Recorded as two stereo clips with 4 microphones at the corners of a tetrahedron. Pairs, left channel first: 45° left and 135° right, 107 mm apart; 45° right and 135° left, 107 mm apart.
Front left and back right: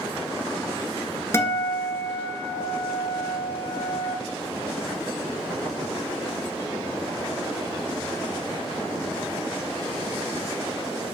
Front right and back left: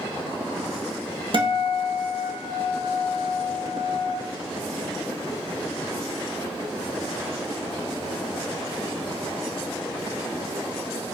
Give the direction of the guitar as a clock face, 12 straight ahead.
8 o'clock.